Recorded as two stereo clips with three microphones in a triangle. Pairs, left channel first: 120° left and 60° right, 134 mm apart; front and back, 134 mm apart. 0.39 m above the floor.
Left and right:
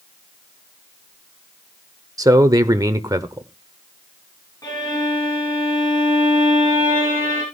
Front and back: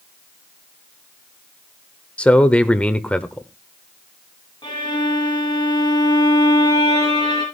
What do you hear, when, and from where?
2.2 s a man speaking: 70° right, 0.8 m
4.6 s a violin: 55° left, 6 m